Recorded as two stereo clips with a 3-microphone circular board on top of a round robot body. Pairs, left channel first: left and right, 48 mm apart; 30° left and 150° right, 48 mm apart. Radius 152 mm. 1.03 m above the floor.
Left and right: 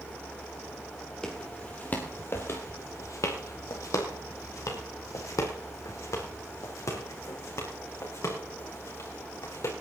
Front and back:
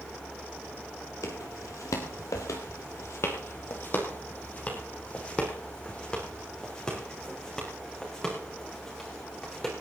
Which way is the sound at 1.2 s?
10° left.